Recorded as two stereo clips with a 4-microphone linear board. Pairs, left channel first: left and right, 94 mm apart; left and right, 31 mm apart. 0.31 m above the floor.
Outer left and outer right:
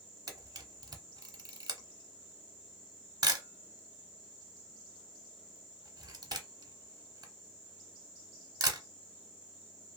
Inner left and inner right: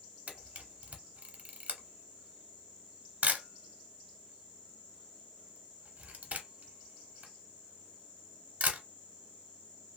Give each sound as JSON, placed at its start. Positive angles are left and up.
{"t": 0.3, "sound": "a camera shutter", "side_deg": -45, "distance_m": 0.8}